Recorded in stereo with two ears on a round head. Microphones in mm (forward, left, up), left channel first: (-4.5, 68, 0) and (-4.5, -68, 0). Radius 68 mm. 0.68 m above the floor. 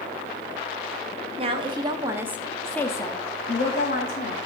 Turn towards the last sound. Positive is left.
turn(degrees=65)  # may be behind; listen again after turning